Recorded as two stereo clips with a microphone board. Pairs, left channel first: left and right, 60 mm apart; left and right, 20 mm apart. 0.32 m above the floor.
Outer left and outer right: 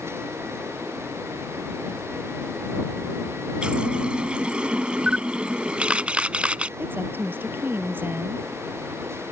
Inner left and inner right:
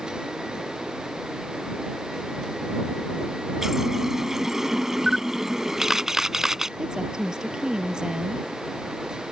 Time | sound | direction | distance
3.6 | a running tap | 20° right (ahead or behind) | ?
5.1 | a camera shutter | 20° right (ahead or behind) | ?
6.8 | a woman speaking | 35° right (ahead or behind) | ?